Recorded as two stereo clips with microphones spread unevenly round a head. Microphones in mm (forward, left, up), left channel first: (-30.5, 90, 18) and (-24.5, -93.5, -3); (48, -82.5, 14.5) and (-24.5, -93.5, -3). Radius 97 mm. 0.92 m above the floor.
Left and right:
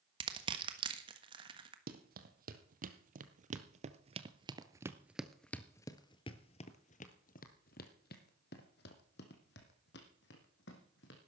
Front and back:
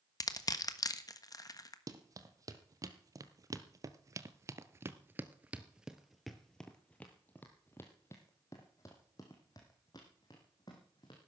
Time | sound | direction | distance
0.2 | crushing | 30° right | 1.4 m
1.9 | running footsteps | 125° right | 2 m